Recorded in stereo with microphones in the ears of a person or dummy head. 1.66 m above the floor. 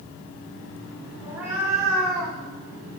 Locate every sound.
1.2 s a cat meowing: 20° right (ahead or behind), 2.5 m; by 3.0 s 15° left (ahead or behind), 2.5 m